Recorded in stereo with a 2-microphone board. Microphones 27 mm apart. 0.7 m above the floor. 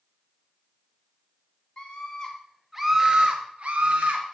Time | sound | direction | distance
1.8 | a scream | 35° left (ahead or behind) | 0.7 m